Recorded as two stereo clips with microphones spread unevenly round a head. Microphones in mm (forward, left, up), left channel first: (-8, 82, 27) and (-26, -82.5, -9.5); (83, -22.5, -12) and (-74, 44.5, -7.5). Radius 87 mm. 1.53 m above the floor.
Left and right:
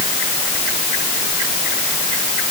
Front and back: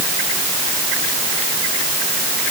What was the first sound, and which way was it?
Only background noise.